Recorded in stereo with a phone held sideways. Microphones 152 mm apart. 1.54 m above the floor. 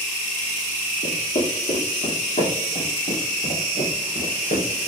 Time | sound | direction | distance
1.0 | footsteps | 45° left (ahead or behind) | 2.5 m